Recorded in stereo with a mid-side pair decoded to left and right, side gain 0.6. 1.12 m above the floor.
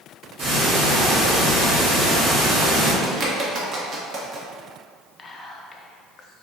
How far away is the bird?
About 0.9 m.